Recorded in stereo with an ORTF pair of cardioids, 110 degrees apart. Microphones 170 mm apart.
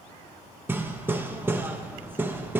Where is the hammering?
10° right, 1.1 m.